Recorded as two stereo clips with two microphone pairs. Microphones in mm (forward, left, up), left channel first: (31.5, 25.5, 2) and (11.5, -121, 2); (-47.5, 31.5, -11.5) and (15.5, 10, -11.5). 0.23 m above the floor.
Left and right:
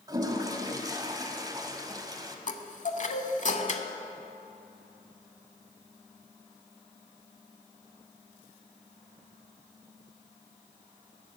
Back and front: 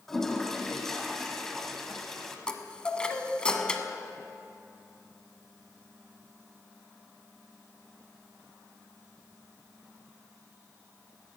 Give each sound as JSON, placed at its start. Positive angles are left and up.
{"t": 0.1, "sound": "a toilet flushing", "azimuth_deg": -120, "distance_m": 0.9}
{"t": 2.5, "sound": "a chime", "azimuth_deg": 90, "distance_m": 0.7}